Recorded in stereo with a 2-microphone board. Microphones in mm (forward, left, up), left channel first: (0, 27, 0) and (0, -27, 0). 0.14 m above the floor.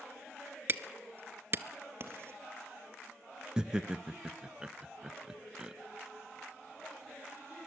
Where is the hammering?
45° right (ahead or behind), 0.9 m.